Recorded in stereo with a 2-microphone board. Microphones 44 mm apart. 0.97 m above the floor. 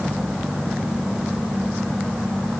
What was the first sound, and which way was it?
Only background noise.